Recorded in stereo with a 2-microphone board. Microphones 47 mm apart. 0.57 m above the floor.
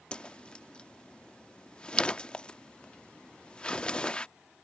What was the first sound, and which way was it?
A whoosh, 20° left (ahead or behind).